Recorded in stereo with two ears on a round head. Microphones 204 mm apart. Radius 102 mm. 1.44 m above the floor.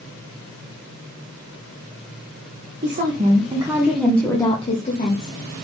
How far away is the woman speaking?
About 1.4 m.